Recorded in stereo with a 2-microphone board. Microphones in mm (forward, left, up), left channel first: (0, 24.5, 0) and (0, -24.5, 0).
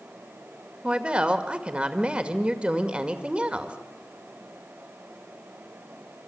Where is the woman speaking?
20° right (ahead or behind), 2 m.